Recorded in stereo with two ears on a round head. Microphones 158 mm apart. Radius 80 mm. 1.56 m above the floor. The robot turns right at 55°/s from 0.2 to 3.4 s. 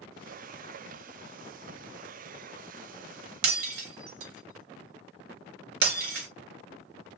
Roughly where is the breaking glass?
Right.